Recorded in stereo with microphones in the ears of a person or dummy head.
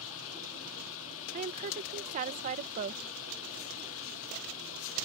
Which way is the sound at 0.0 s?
75° left (ahead or behind).